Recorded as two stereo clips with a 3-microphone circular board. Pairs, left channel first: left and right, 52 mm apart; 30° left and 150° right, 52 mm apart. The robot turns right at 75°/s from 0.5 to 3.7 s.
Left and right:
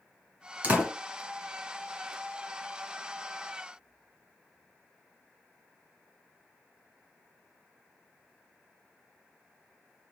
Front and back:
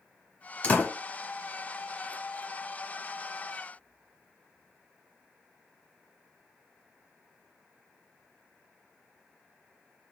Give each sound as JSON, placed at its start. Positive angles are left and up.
{"t": 0.6, "sound": "a door slam", "azimuth_deg": -30, "distance_m": 1.6}